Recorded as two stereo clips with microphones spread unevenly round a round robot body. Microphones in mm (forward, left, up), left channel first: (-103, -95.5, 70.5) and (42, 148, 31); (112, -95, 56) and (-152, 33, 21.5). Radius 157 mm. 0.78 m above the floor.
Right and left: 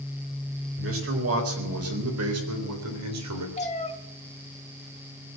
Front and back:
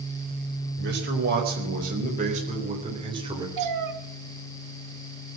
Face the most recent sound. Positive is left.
turn(degrees=175)